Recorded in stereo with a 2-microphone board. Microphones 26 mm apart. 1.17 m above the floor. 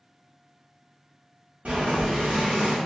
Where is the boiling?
65° right (ahead or behind), 1.4 m.